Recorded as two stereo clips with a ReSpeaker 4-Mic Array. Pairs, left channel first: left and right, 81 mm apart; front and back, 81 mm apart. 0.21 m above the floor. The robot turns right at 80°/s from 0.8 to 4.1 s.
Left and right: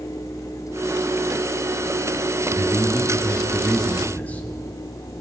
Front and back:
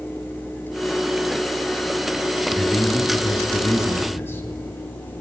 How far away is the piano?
I don't hear a piano.